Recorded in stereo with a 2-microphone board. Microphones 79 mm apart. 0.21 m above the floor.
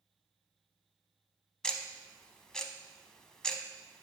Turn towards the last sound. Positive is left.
turn(degrees=10)  # may be behind; listen again after turning